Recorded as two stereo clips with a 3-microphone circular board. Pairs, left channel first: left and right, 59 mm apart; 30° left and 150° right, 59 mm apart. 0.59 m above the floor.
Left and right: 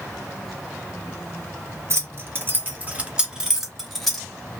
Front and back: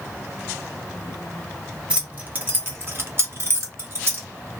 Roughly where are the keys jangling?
Right.